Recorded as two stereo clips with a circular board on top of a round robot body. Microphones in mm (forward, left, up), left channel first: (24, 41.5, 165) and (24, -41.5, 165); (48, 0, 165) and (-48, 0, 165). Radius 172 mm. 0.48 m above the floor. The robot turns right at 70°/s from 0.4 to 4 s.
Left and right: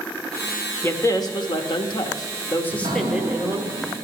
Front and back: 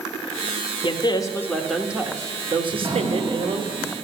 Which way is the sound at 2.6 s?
145° right.